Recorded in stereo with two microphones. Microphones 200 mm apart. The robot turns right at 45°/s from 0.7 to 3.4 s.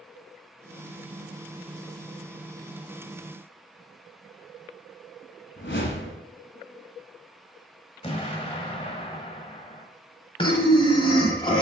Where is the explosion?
30° left (ahead or behind), 1.0 m.